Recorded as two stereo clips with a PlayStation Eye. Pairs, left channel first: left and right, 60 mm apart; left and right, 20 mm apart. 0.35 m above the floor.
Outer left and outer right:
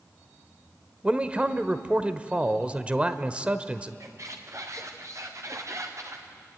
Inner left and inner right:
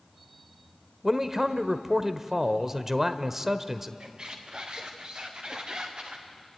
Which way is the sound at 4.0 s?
55° right (ahead or behind).